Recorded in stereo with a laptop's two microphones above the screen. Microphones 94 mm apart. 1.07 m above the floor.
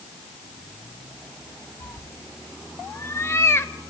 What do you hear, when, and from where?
1.8 s a cat meowing: 30° left (ahead or behind), 0.7 m